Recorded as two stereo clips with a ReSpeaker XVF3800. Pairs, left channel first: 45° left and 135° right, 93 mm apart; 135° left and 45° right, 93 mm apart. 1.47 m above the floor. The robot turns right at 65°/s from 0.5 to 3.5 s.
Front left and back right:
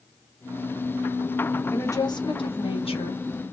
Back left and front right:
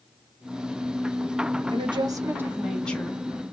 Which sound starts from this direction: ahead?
A woman speaking, at 1.7 s.